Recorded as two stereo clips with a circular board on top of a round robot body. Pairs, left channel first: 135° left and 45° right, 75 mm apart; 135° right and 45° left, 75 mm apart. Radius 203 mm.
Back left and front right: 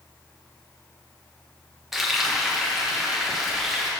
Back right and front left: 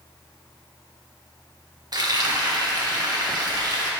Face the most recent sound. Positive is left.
turn(degrees=40)